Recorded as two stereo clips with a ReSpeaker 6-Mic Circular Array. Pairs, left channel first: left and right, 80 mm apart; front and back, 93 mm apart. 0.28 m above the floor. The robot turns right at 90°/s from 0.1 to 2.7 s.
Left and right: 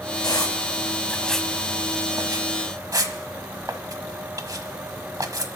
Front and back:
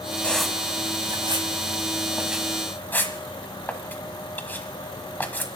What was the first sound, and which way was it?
A squeak, 75° left.